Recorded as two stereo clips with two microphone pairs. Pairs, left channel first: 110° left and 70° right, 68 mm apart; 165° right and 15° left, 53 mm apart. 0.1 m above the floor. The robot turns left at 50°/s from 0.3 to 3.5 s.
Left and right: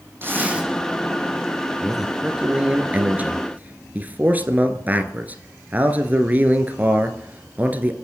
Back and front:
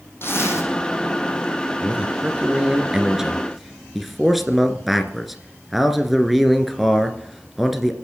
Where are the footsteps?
I don't hear footsteps.